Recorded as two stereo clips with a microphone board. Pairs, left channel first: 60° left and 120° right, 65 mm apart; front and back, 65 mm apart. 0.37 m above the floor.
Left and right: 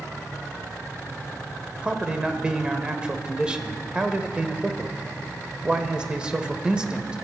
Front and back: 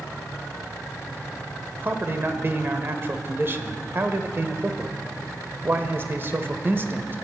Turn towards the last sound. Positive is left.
turn(degrees=175)